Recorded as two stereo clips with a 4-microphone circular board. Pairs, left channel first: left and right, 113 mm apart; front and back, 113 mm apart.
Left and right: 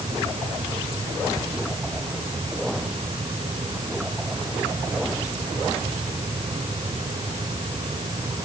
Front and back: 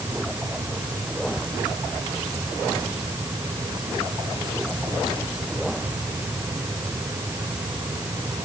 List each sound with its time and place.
Only background noise.